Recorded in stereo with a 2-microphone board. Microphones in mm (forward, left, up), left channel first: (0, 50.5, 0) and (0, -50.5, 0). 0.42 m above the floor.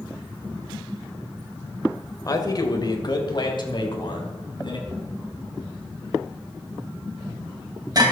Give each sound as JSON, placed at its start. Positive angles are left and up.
{"t": 2.2, "sound": "a man speaking", "side_deg": 35, "distance_m": 1.7}
{"t": 4.9, "sound": "knocking", "side_deg": -40, "distance_m": 2.5}